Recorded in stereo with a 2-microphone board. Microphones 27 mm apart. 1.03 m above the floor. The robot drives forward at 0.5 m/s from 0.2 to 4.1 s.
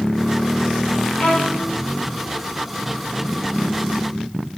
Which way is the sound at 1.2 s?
40° left (ahead or behind).